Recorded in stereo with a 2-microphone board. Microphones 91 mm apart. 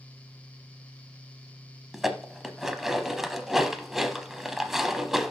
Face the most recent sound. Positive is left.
turn(degrees=-5)  # may be behind; listen again after turning